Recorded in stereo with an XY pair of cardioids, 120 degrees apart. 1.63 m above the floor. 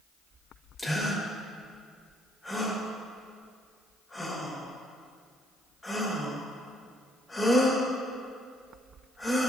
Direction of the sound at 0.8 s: 20° left.